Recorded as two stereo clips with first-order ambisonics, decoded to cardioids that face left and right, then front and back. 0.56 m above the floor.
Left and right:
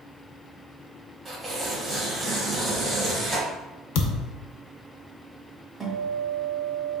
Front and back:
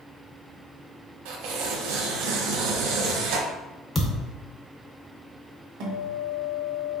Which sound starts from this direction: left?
A thud, at 4.0 s.